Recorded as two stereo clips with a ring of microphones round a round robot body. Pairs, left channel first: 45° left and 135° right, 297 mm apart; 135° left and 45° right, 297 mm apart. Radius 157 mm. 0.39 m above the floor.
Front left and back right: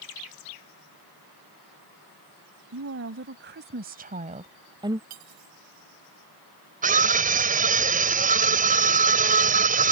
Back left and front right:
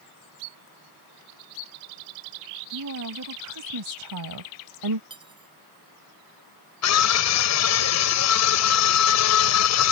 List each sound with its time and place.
2.7 s a woman speaking: 85° right; by 5.0 s 55° right
5.1 s cutlery clinking: 120° right
6.8 s a scream: 165° left